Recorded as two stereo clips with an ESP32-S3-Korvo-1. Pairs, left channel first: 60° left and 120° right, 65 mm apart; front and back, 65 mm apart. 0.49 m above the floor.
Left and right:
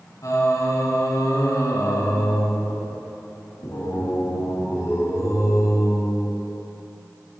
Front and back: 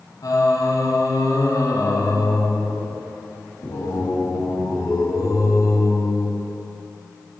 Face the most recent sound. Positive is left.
turn(degrees=25)